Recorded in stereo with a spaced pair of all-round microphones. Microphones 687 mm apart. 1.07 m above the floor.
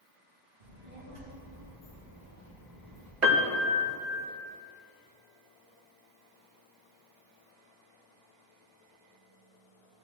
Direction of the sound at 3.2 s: 80° right.